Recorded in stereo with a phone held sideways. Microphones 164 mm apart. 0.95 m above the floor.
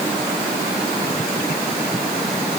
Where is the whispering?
No whispering in this recording.